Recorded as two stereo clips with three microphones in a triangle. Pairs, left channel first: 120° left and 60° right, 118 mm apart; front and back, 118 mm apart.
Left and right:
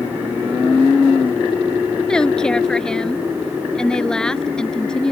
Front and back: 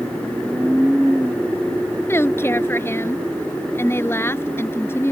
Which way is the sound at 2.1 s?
40° left.